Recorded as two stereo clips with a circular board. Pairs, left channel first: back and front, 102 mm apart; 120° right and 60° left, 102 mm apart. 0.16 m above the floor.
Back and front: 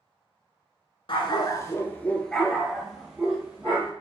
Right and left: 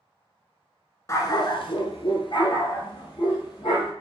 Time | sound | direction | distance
1.1 | a dog barking | 170° right | 0.5 m